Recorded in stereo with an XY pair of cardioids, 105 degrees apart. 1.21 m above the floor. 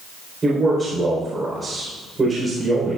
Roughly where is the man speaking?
Ahead right.